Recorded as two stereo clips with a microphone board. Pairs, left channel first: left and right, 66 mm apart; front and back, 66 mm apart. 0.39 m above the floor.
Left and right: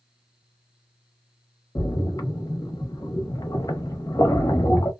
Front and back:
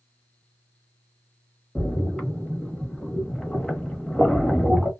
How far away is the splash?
About 0.8 m.